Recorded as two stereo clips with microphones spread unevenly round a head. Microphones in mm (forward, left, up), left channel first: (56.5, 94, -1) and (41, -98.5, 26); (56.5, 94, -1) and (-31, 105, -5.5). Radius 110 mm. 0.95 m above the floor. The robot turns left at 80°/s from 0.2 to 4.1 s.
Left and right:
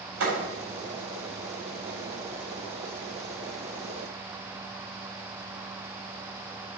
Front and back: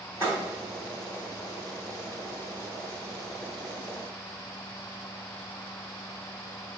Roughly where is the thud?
Right.